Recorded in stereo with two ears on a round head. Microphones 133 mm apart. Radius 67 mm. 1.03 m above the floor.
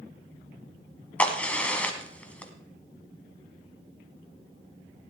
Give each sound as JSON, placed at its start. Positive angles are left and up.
{"t": 1.2, "sound": "a crack", "side_deg": 10, "distance_m": 1.3}